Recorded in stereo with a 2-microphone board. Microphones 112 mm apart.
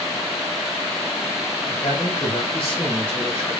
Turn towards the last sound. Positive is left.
turn(degrees=55)  # may be behind; listen again after turning